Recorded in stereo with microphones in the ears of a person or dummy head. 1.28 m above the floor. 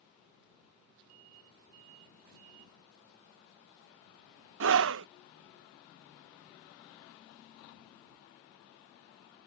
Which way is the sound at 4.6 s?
80° right.